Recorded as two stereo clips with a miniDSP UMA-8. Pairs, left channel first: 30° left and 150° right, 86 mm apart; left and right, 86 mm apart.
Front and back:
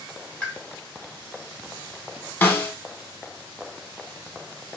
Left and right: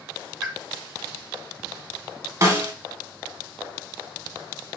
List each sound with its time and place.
0.4 s a pop: 25° right, 1.5 m
2.4 s a snare drum: 40° right, 0.8 m